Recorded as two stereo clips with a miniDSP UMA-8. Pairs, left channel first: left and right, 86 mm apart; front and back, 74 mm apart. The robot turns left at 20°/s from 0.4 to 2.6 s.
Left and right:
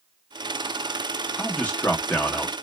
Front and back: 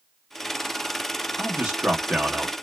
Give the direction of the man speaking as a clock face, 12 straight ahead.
7 o'clock.